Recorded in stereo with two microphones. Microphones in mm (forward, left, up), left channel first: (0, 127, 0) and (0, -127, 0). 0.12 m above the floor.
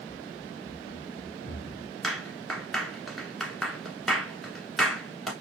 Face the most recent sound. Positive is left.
turn(degrees=0)  # may be behind; listen again after turning